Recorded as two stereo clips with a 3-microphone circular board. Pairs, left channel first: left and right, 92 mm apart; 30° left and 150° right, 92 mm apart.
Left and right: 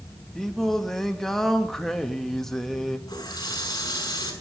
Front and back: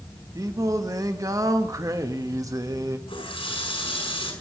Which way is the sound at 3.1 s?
45° left.